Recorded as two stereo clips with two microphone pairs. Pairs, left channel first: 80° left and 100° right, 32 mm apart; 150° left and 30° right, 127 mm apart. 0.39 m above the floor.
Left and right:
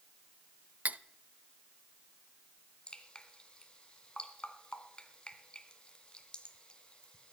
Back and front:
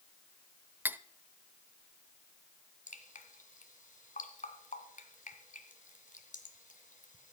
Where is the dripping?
140° left, 1.8 m.